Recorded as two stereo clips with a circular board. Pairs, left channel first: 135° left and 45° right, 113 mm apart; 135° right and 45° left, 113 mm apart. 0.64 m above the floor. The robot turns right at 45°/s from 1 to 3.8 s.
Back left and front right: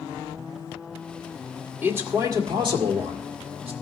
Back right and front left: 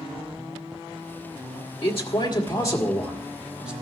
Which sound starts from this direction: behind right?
A man speaking, at 1.8 s.